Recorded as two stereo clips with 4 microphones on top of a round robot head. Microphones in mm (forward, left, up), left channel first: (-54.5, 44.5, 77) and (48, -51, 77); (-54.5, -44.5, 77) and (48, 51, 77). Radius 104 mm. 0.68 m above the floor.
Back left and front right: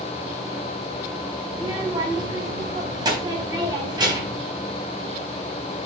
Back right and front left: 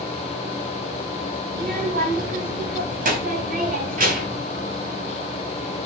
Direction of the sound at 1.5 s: 20° left.